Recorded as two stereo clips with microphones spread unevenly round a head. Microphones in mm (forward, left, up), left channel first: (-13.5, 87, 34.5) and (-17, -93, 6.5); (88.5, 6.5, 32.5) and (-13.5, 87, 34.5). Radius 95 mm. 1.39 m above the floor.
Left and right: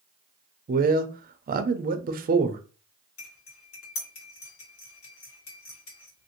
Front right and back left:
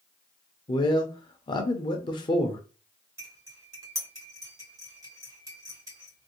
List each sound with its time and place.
0.7 s a man speaking: 90° right, 0.5 m
3.2 s cutlery clinking: 80° left, 2 m